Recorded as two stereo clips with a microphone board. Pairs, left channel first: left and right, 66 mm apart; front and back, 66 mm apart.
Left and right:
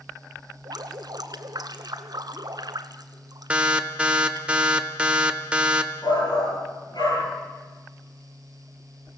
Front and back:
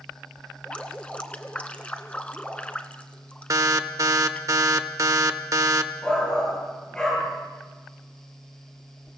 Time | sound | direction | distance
0.7 | dripping | 75° right | 1.0 m
3.5 | an alarm | 160° right | 1.0 m
6.0 | a shout | 75° left | 9 m